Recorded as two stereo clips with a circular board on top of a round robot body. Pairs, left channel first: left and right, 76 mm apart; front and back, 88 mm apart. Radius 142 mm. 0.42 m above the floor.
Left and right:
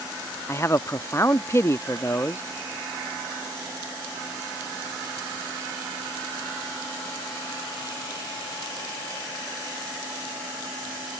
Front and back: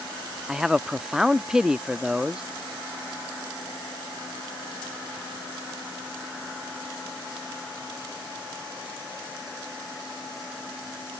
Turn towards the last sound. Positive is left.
turn(degrees=100)